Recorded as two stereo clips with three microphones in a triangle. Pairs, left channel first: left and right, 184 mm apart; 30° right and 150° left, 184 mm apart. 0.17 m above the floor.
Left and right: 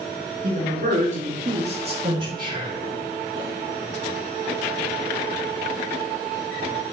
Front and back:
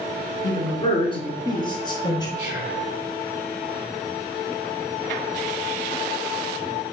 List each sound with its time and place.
0.4 s a man speaking: 85° right, 2 m; by 2.3 s 65° right, 1.3 m
2.4 s whispering: 135° right, 2 m